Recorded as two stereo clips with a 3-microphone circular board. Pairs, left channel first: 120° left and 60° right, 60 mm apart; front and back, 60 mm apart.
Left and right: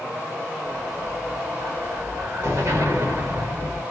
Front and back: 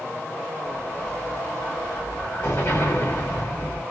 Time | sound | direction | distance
0.7 | an explosion | 30° right | 1.7 m